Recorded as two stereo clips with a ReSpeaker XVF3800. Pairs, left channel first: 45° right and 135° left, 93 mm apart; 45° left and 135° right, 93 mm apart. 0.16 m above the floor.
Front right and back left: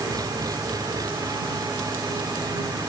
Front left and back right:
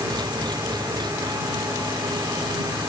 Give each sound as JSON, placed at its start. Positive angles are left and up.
{"t": 0.0, "sound": "an engine running", "azimuth_deg": -175}